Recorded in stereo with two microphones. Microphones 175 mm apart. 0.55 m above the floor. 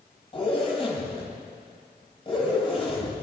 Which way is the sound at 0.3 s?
30° left (ahead or behind).